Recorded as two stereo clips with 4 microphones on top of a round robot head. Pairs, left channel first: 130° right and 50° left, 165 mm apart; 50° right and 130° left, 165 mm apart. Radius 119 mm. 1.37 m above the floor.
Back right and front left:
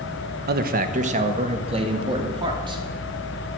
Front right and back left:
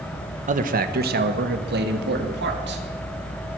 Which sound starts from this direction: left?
A man speaking, at 0.5 s.